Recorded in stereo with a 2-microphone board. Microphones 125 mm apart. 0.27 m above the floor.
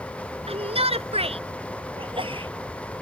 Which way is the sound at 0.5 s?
55° right (ahead or behind).